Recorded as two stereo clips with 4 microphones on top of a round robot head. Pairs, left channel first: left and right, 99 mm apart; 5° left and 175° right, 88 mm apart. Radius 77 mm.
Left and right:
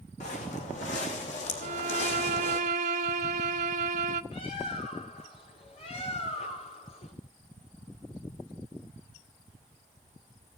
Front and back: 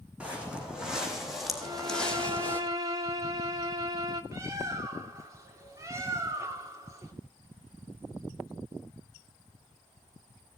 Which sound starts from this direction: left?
Footsteps, at 0.2 s.